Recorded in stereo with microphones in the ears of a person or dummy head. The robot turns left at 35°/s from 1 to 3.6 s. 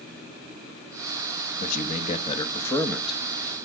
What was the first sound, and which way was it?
A man speaking, 50° left.